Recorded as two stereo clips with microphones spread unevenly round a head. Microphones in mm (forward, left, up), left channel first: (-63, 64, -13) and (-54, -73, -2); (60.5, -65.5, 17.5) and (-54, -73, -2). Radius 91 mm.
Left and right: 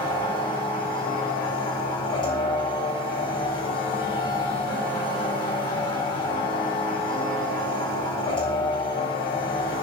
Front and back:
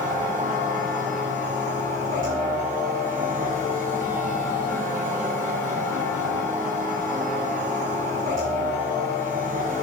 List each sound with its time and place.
0.0 s a machine running: 150° left, 7 m